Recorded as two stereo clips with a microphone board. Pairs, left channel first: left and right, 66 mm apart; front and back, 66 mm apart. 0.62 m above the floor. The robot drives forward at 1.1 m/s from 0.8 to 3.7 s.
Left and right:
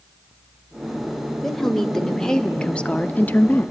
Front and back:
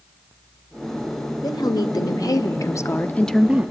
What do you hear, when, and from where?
1.4 s a woman speaking: 5° left, 2 m; by 3.7 s 145° left, 0.7 m